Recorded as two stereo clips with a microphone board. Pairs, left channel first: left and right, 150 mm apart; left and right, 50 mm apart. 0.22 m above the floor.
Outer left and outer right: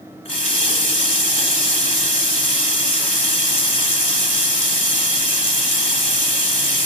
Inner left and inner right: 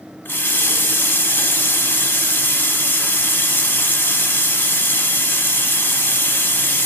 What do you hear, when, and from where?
0.2 s a running tap: 45° left (ahead or behind), 1.2 m